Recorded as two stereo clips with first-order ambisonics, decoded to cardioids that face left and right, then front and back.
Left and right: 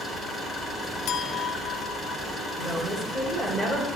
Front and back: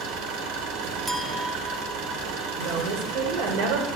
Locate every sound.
0.0 s an engine running: 170° left, 4 m
1.1 s a clink: 110° left, 1.2 m
2.6 s a woman speaking: 175° left, 3.5 m